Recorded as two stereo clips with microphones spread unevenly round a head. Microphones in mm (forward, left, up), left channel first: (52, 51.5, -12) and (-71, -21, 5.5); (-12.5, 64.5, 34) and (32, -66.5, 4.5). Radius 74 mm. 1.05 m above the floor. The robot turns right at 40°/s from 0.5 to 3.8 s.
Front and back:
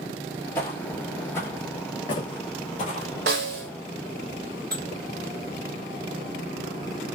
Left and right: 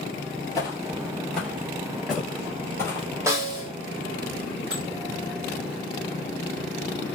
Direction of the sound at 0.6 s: 100° left.